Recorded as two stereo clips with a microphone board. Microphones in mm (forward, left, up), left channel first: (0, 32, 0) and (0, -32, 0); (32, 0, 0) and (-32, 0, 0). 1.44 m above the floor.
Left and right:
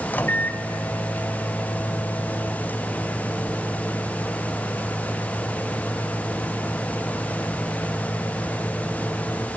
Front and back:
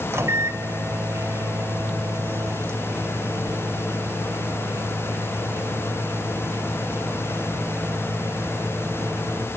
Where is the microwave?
145° left, 0.6 m.